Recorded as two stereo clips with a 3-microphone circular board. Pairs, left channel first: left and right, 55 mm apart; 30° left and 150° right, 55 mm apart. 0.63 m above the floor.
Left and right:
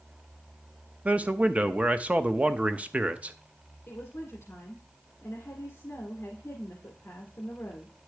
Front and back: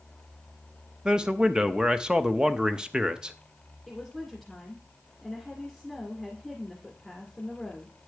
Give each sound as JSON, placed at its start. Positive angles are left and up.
{"t": 1.1, "sound": "a man speaking", "azimuth_deg": -100, "distance_m": 0.5}
{"t": 3.9, "sound": "a woman speaking", "azimuth_deg": 115, "distance_m": 1.9}